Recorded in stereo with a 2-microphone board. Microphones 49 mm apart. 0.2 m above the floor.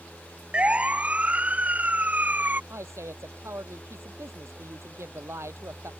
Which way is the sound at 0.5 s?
25° right (ahead or behind).